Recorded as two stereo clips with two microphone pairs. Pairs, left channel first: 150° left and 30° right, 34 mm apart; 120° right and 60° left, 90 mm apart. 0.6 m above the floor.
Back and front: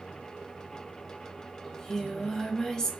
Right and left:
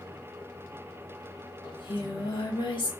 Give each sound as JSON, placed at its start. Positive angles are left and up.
{"t": 1.6, "sound": "singing", "azimuth_deg": -135, "distance_m": 0.6}